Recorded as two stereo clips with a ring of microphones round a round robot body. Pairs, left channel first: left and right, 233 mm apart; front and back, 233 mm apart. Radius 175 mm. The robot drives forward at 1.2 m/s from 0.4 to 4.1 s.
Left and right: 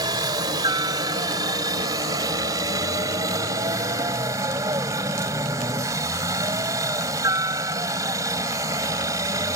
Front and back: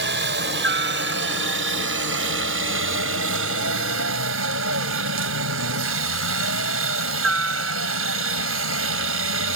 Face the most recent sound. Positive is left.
turn(degrees=-165)